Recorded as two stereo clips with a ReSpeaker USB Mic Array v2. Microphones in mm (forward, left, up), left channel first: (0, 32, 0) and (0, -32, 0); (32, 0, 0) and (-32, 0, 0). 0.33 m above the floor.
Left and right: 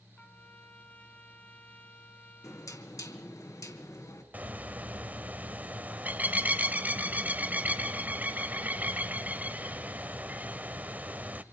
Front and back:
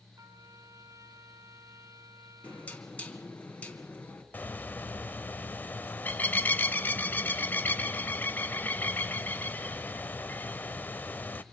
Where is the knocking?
65° left, 3 m.